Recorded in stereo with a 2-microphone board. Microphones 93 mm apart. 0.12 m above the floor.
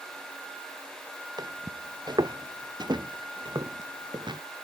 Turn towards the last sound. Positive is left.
turn(degrees=-55)  # may be behind; listen again after turning